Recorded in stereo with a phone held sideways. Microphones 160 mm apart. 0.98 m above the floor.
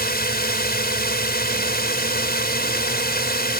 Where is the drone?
80° left.